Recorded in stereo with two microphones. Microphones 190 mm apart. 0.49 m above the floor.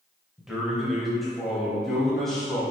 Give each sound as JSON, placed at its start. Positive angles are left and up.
{"t": 0.4, "sound": "a man speaking", "side_deg": 0, "distance_m": 2.0}